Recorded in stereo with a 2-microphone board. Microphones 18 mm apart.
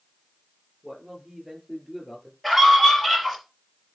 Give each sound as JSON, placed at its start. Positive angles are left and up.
{"t": 0.8, "sound": "a man speaking", "side_deg": -15, "distance_m": 5.0}
{"t": 2.4, "sound": "a scream", "side_deg": 0, "distance_m": 4.5}